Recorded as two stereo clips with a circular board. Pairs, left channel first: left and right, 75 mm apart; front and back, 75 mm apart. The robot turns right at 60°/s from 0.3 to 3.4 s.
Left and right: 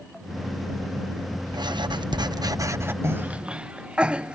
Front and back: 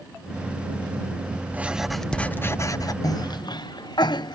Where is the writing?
110° right; by 2.9 s 30° right.